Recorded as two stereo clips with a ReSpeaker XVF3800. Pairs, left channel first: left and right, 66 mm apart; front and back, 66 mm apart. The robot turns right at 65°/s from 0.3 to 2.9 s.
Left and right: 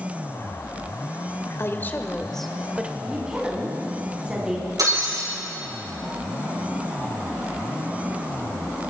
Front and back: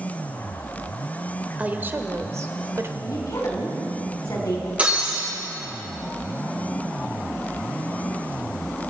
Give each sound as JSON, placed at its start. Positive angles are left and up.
{"t": 1.6, "sound": "a woman speaking", "azimuth_deg": 120, "distance_m": 1.1}
{"t": 3.0, "sound": "a woman speaking", "azimuth_deg": -15, "distance_m": 3.5}
{"t": 4.8, "sound": "breaking glass", "azimuth_deg": -110, "distance_m": 7.0}